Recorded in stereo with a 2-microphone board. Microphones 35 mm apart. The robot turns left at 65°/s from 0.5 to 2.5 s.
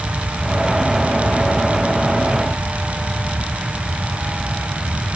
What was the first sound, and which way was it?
Only background noise.